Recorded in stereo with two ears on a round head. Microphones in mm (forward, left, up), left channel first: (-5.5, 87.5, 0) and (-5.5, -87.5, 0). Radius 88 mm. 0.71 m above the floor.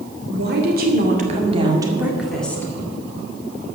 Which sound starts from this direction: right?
A woman speaking, at 0.3 s.